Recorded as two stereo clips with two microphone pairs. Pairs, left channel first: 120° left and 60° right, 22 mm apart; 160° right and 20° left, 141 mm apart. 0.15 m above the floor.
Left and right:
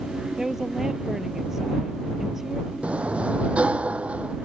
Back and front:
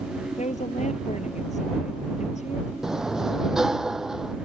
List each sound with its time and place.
0.4 s a woman speaking: 130° right
2.8 s a sliding door: 65° right